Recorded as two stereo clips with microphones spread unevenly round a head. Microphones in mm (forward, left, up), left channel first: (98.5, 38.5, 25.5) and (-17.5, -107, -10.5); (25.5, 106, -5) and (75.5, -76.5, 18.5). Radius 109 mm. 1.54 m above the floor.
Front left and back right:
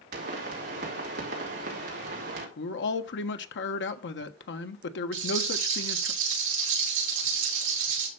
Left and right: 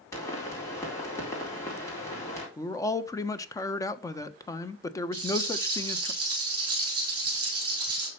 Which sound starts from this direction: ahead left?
A man speaking, at 2.6 s.